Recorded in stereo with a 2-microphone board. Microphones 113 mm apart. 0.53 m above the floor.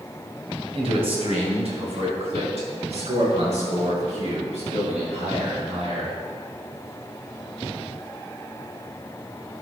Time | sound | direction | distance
0.8 | a man speaking | 55° right (ahead or behind) | 3 m